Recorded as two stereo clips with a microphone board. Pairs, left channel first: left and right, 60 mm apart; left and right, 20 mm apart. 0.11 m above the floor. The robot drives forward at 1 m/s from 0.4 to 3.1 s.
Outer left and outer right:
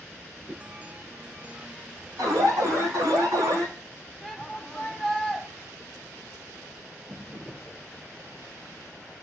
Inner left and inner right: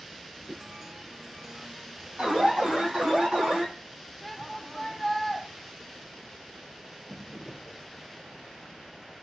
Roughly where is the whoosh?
Right.